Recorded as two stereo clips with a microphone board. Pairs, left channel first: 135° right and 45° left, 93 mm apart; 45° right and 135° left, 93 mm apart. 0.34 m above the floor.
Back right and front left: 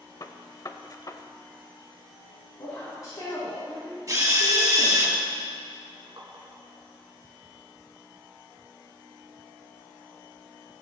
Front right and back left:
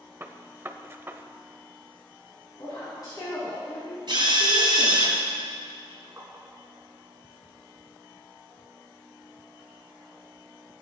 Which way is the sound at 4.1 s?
100° left.